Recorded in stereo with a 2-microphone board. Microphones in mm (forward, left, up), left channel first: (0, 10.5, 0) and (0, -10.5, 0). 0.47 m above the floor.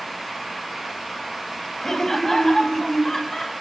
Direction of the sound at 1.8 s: 20° left (ahead or behind).